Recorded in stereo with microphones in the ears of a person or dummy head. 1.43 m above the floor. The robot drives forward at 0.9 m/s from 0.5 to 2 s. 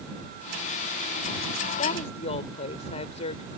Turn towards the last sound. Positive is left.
turn(degrees=35)  # may be behind; listen again after turning